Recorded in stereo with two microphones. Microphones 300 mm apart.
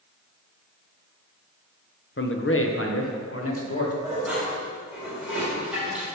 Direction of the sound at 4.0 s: 5° right (ahead or behind).